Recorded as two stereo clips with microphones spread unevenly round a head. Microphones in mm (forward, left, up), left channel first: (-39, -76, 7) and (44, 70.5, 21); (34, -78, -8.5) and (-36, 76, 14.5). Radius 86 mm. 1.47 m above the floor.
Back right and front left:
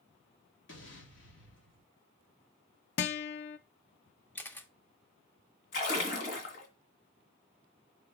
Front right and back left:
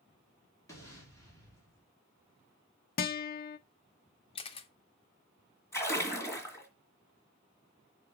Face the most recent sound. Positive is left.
turn(degrees=-145)